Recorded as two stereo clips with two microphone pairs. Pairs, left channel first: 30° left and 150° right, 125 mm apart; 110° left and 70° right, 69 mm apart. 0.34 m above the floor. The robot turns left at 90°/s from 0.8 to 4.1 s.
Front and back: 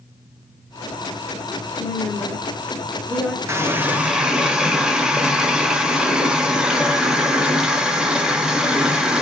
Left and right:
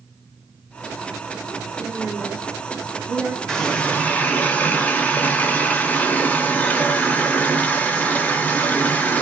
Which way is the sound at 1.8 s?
65° left.